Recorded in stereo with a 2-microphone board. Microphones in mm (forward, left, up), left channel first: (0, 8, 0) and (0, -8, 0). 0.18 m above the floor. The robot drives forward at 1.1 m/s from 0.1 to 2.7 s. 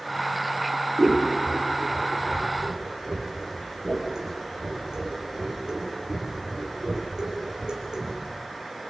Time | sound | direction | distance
1.0 | scissors | 60° right (ahead or behind) | 5 m